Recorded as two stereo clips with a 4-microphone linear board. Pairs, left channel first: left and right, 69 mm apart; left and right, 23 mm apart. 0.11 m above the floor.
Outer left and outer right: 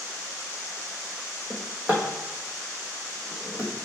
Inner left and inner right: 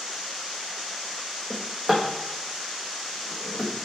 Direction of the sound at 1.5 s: 20° right (ahead or behind).